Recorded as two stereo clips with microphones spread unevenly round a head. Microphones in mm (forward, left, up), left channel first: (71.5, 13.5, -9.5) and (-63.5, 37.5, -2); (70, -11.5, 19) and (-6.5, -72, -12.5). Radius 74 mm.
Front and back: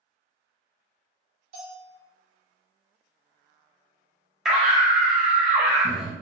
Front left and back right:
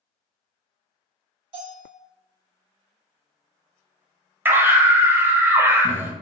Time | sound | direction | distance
1.5 | a bell | 160° left | 1.8 m
4.5 | a scream | 105° right | 0.6 m